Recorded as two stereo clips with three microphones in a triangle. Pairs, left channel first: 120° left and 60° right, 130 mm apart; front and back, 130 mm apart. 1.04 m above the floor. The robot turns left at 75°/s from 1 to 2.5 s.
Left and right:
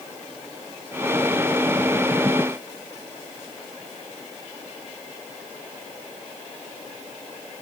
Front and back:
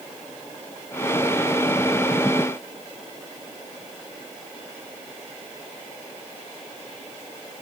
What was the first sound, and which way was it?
Only background noise.